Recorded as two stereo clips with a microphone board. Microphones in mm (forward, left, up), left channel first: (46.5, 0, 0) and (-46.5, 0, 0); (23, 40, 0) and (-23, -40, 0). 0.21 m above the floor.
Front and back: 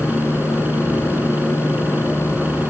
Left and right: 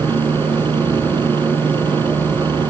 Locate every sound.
0.0 s a helicopter: 110° right